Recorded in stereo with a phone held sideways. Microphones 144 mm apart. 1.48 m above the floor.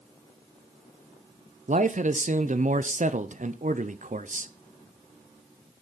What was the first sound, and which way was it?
A man speaking, 60° right (ahead or behind).